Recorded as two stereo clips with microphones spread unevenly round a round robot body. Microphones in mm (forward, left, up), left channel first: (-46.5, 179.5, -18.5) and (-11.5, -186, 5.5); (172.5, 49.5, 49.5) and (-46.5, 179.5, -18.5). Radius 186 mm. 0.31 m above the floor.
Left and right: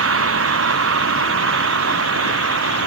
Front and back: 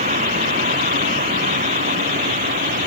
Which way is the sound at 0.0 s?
140° right.